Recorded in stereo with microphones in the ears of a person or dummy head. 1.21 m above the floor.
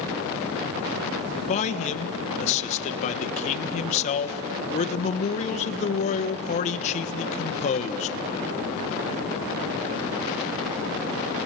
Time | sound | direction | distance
1.5 | a man speaking | 45° left (ahead or behind) | 1.3 m